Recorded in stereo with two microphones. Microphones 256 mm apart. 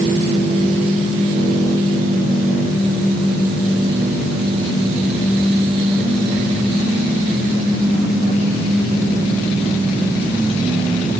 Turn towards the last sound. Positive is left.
No sound to turn to.